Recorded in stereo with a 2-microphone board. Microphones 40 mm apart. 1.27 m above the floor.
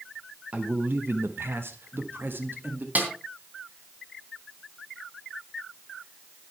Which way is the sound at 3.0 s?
45° right (ahead or behind).